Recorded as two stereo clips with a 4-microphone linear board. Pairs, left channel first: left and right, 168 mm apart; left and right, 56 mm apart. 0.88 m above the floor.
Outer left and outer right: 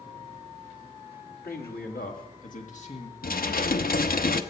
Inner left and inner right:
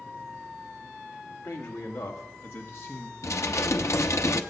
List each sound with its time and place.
1.4 s a man speaking: 70° left (ahead or behind), 2 m; by 3.1 s 35° left (ahead or behind), 2.0 m
3.2 s dishes clattering: 60° left (ahead or behind), 0.7 m